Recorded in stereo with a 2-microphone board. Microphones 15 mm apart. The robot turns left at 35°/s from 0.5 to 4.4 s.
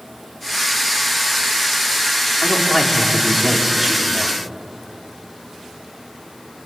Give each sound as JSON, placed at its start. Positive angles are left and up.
{"t": 2.4, "sound": "a man speaking", "azimuth_deg": 35, "distance_m": 4.5}